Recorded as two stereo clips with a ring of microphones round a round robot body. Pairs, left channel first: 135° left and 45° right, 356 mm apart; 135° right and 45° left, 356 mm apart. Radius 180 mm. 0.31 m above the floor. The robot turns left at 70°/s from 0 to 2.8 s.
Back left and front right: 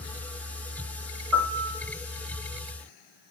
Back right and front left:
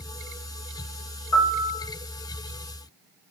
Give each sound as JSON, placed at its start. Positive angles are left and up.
{"t": 1.3, "sound": "a piano", "azimuth_deg": -90, "distance_m": 4.0}